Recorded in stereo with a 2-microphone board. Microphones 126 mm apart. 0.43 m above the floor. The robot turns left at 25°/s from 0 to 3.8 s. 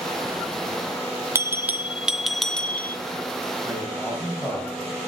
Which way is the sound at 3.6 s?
10° left (ahead or behind).